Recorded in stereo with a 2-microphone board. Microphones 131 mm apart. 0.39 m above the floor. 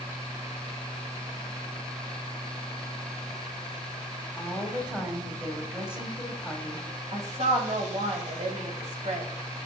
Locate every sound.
4.4 s a woman speaking: 10° right (ahead or behind), 1.6 m
7.1 s a woman speaking: 60° right (ahead or behind), 1.8 m